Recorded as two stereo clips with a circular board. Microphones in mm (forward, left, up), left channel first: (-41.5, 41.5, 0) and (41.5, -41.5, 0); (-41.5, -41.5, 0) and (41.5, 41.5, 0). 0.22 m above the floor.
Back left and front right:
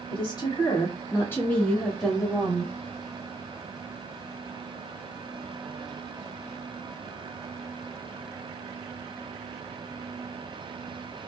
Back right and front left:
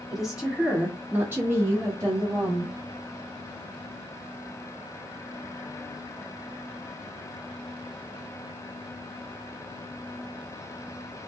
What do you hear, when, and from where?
0.1 s a woman speaking: 130° left, 1.6 m; by 2.7 s 25° left, 1.5 m